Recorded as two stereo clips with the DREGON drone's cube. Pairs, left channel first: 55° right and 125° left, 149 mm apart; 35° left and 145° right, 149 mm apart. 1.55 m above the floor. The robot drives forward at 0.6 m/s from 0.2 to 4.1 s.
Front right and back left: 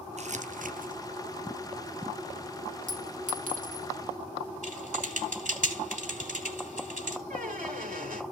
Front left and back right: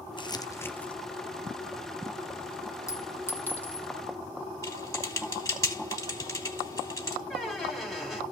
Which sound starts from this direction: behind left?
A squeak, at 7.3 s.